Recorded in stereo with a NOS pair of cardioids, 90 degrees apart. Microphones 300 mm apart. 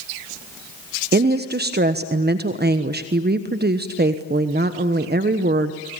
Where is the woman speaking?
35° right, 1.3 m.